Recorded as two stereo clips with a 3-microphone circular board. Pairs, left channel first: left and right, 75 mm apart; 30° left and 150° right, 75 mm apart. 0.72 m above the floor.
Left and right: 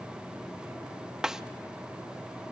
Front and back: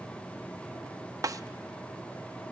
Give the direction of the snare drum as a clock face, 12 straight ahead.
6 o'clock.